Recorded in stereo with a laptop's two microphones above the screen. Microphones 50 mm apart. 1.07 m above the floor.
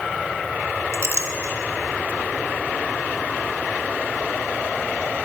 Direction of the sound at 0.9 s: 60° right (ahead or behind).